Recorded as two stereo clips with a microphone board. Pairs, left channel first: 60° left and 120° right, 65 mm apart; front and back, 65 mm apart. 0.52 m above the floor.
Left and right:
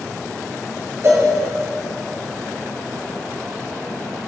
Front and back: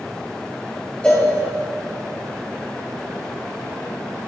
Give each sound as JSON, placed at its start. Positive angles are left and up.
{"t": 1.0, "sound": "a cowbell", "azimuth_deg": -75, "distance_m": 2.5}